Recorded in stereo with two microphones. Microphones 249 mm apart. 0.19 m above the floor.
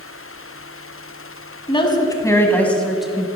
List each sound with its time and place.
1.7 s a woman speaking: 20° left (ahead or behind), 1.6 m; by 3.4 s 5° right (ahead or behind), 1.4 m